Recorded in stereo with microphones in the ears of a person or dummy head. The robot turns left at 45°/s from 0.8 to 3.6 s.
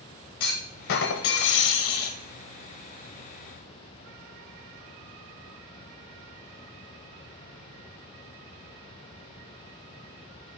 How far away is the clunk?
About 0.8 m.